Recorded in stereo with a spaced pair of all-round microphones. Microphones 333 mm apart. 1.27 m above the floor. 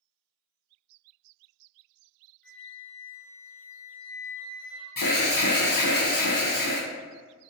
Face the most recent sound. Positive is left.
turn(degrees=75)  # may be behind; listen again after turning